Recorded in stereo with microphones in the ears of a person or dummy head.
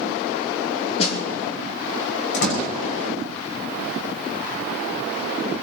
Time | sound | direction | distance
1.0 | a snare drum | 35° left (ahead or behind) | 2.5 m
2.3 | a door slam | 80° left | 6.5 m